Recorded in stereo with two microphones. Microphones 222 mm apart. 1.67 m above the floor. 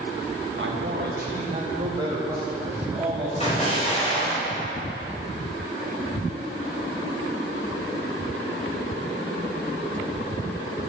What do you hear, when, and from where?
0.6 s a man speaking: 60° right (ahead or behind), 1.7 m; by 4.4 s 10° left (ahead or behind), 4 m
3.4 s an explosion: 30° left (ahead or behind), 5 m